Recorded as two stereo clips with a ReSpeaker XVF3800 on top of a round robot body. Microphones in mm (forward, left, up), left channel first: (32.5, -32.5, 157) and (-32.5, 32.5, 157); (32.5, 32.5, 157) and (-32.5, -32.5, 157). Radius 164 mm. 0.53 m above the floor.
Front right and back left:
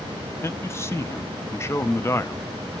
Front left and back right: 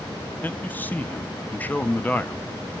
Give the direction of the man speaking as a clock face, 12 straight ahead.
12 o'clock.